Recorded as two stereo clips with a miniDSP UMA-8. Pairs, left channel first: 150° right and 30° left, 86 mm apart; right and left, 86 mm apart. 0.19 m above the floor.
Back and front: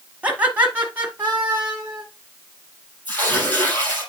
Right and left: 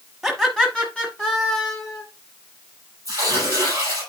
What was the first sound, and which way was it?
Laughter, 5° left.